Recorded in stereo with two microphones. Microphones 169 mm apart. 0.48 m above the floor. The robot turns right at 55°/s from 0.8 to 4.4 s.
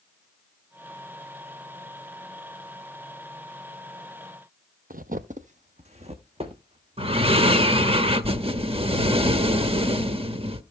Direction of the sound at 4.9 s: 55° right (ahead or behind).